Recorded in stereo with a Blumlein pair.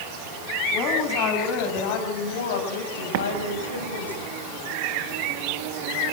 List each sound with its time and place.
0.7 s a woman speaking: 40° left, 8 m; by 4.1 s 80° left, 6 m
3.1 s an explosion: 50° right, 1.6 m